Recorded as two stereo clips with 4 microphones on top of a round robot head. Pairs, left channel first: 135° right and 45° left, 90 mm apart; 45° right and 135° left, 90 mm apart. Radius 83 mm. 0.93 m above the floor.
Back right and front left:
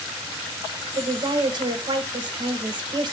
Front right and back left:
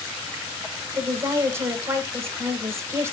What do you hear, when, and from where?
0.9 s a woman speaking: 80° left, 0.8 m